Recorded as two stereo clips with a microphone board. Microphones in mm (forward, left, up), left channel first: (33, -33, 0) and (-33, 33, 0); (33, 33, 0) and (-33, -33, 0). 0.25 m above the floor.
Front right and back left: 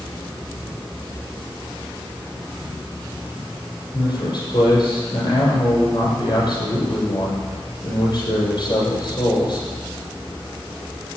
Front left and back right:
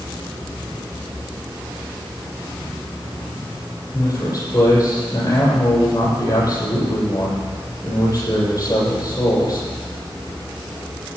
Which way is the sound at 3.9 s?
Straight ahead.